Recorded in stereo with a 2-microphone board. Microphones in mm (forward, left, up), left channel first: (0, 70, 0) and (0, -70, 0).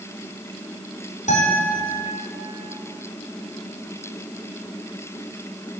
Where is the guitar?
60° left (ahead or behind), 4 m.